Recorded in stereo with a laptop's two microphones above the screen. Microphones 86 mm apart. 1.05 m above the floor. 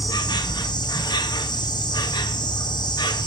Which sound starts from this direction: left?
An insect, at 0.0 s.